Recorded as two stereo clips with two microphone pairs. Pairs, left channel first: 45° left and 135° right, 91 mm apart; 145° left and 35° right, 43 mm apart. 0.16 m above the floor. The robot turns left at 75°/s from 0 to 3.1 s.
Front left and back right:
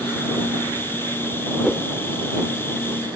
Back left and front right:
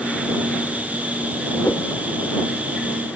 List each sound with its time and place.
1.6 s a whoosh: 135° left; by 1.9 s 115° left